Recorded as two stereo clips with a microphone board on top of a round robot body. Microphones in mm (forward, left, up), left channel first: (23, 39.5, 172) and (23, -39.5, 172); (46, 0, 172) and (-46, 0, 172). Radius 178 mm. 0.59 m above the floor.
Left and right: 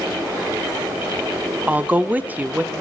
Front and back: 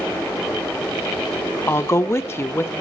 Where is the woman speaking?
35° right, 0.9 m.